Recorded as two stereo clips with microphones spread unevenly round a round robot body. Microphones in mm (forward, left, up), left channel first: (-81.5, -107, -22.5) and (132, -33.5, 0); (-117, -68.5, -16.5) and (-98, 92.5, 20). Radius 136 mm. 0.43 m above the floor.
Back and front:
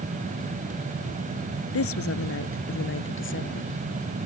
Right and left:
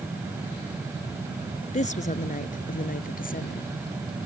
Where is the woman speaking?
140° right; by 3.7 s 125° right.